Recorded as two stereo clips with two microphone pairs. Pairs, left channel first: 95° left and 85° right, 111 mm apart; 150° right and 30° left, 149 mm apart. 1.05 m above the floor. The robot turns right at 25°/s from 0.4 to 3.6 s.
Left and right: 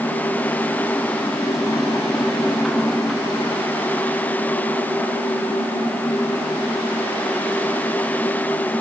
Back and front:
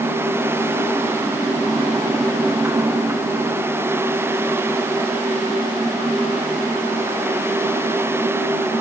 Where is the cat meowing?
No cat meowing in this recording.